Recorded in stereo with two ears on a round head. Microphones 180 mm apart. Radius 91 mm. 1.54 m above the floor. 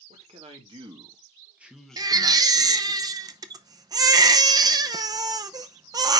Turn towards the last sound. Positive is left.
turn(degrees=-20)  # may be behind; listen again after turning